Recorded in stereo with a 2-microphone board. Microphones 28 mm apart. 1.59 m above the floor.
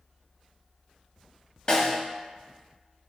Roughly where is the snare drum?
Left.